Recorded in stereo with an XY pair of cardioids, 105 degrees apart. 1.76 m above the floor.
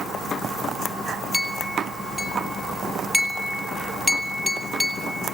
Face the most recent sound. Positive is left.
turn(degrees=-10)